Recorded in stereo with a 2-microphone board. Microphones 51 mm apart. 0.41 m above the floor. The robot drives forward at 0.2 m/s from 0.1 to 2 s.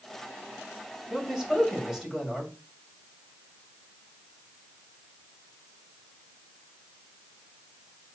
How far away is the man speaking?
About 2 m.